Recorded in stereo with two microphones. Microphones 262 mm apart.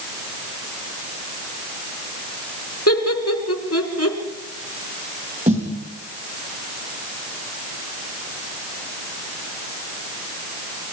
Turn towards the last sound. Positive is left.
turn(degrees=-30)  # may be behind; listen again after turning